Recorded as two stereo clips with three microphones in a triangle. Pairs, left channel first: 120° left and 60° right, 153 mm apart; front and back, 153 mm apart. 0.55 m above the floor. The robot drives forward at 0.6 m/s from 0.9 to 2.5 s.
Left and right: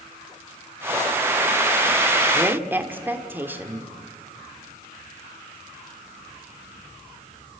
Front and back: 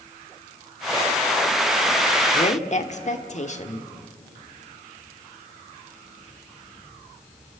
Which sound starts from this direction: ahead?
A woman speaking, at 2.3 s.